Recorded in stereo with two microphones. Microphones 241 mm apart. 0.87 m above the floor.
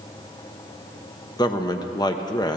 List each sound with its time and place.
1.4 s a man speaking: 15° left (ahead or behind), 0.6 m